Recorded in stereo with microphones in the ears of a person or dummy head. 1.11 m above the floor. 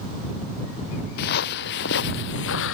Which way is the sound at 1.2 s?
55° left (ahead or behind).